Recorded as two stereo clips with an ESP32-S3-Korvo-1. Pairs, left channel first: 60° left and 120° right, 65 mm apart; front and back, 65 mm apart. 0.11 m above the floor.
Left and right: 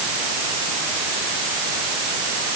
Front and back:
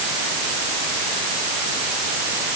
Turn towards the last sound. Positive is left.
No sound to turn to.